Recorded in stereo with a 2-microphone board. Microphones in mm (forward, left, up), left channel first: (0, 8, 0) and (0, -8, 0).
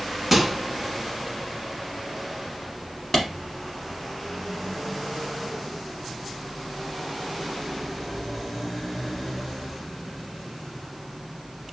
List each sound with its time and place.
0.3 s a microwave: 15° right (ahead or behind), 0.9 m
3.1 s a clap: 15° left (ahead or behind), 1.1 m